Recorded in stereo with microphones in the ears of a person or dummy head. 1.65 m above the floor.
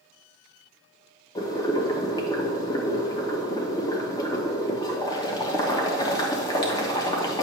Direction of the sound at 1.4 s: 25° left (ahead or behind).